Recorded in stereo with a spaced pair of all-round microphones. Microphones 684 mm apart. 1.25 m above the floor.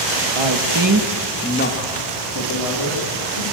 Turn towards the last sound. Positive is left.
turn(degrees=50)  # may be behind; listen again after turning